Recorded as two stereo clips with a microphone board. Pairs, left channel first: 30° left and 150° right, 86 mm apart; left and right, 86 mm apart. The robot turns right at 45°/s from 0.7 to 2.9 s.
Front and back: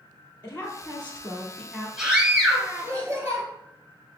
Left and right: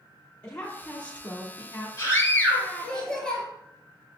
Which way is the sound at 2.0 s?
125° left.